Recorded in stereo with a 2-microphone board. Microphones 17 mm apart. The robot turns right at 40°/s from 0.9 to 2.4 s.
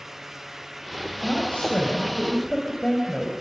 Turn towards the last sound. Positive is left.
turn(degrees=140)